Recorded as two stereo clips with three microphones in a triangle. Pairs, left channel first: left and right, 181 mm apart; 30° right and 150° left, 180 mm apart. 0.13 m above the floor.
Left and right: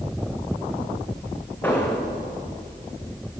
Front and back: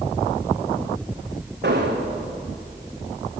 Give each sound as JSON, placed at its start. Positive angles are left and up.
{"t": 1.6, "sound": "an explosion", "azimuth_deg": 170, "distance_m": 1.9}